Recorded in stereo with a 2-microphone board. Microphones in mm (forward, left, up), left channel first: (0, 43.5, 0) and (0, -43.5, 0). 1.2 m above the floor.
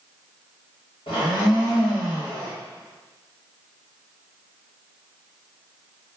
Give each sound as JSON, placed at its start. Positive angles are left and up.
{"t": 1.1, "sound": "a blender", "side_deg": 80, "distance_m": 1.2}